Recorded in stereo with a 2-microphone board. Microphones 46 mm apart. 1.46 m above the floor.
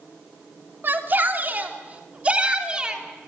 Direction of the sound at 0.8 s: 45° right (ahead or behind).